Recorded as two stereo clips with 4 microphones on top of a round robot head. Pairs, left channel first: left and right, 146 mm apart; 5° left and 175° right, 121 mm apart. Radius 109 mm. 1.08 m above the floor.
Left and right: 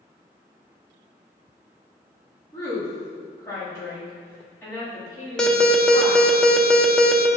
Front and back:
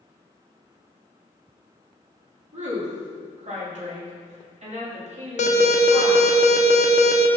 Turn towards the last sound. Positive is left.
turn(degrees=5)